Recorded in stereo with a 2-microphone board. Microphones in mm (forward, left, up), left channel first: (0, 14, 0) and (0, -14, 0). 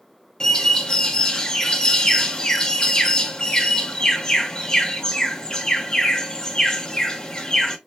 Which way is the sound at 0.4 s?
30° left (ahead or behind).